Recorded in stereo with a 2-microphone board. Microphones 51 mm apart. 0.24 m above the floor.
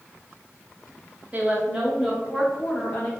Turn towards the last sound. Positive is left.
turn(degrees=25)  # may be behind; listen again after turning